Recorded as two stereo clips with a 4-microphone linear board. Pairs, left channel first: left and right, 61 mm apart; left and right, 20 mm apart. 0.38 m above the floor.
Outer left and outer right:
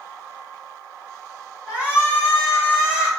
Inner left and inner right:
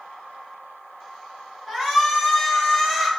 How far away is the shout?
About 1.3 m.